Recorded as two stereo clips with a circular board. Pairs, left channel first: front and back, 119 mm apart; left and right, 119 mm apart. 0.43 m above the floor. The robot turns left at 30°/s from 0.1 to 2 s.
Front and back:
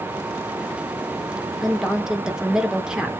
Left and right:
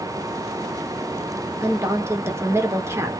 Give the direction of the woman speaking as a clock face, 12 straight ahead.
3 o'clock.